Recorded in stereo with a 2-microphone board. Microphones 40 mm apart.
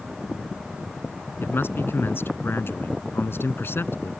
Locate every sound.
1.4 s a man speaking: 65° left (ahead or behind)